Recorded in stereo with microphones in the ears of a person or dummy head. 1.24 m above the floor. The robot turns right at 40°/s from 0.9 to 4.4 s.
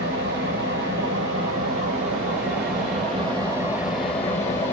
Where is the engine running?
125° right, 2.5 m; by 4.7 s 15° left, 2.5 m.